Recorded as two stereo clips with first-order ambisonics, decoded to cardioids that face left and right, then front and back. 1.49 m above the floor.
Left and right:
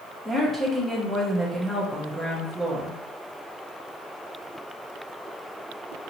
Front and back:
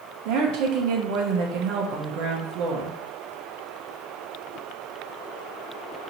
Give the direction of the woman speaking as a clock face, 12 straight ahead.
6 o'clock.